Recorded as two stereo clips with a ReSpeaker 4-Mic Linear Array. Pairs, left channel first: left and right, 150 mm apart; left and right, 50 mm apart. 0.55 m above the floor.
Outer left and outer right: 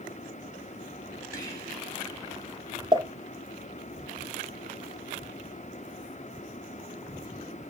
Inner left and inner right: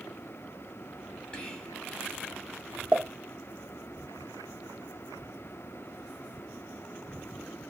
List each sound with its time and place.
1.3 s whispering: 20° left (ahead or behind), 1.3 m
2.9 s a pop: 30° right (ahead or behind), 0.7 m